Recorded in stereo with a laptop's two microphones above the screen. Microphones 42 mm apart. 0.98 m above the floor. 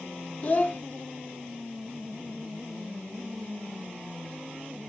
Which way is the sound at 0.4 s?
35° left (ahead or behind).